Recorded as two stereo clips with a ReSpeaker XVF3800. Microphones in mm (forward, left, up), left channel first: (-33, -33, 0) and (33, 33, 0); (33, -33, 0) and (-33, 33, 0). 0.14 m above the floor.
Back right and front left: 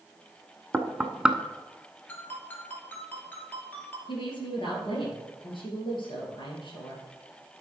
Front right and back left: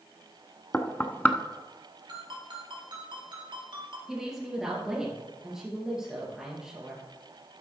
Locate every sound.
0.7 s knocking: 15° right, 0.8 m
2.1 s a ringtone: 155° left, 2.5 m
4.1 s a woman speaking: 140° right, 2.5 m